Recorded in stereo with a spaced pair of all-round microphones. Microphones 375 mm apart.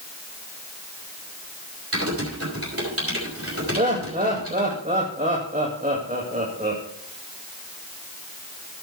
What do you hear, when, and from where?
1.9 s typing on a keyboard: 35° right (ahead or behind), 5 m
3.8 s laughter: 20° right (ahead or behind), 2.0 m